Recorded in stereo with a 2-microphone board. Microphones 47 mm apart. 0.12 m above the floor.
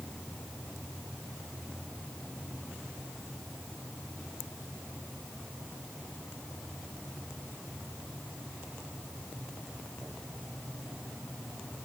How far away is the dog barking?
No dog barking in this recording.